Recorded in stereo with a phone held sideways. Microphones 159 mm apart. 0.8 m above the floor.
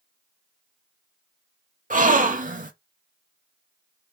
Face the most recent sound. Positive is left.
turn(degrees=-55)  # may be behind; listen again after turning